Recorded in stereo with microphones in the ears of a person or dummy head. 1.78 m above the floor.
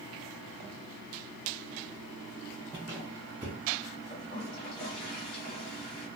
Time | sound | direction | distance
2.7 | a squeak | 10° right (ahead or behind) | 0.7 m
4.1 | a toilet flushing | 50° left (ahead or behind) | 1.6 m